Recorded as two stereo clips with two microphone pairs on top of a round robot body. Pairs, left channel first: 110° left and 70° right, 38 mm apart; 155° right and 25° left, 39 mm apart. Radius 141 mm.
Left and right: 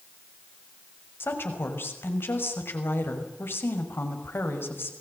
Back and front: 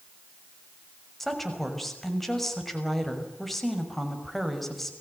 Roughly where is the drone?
No drone in this recording.